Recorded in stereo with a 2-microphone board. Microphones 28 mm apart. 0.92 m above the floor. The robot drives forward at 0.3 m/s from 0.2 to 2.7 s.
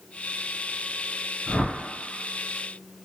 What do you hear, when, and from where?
1.5 s a whoosh: 30° left (ahead or behind), 1.6 m